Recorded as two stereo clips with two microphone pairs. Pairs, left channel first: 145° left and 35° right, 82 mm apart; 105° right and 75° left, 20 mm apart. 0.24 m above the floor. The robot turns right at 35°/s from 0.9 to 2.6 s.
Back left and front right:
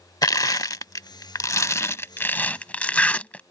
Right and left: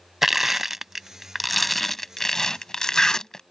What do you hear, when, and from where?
0.2 s crushing: 150° left; by 3.4 s 150° right